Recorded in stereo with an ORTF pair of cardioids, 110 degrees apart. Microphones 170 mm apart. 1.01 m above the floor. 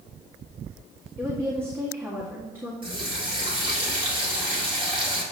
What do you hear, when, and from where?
1.2 s a woman speaking: 15° right, 1.6 m
2.8 s a running tap: 30° right, 1.8 m